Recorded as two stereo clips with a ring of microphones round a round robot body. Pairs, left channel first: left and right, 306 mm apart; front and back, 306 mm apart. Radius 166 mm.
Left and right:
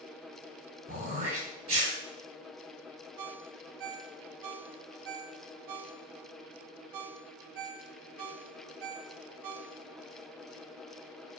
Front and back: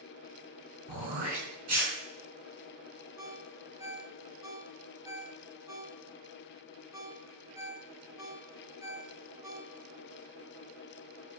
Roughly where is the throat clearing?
Behind.